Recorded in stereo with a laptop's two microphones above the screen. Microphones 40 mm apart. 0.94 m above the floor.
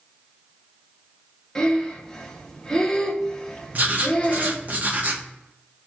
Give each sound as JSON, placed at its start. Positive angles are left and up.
{"t": 1.6, "sound": "breathing", "side_deg": 15, "distance_m": 0.6}
{"t": 3.7, "sound": "writing", "side_deg": -40, "distance_m": 0.6}